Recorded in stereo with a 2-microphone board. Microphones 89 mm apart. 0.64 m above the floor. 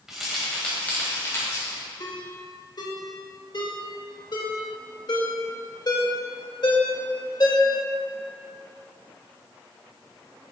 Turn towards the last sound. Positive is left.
turn(degrees=50)  # may be behind; listen again after turning